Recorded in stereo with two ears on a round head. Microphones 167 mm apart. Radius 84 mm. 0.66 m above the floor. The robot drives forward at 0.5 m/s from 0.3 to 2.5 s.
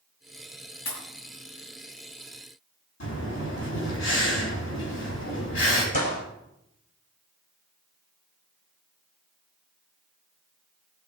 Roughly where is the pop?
Left.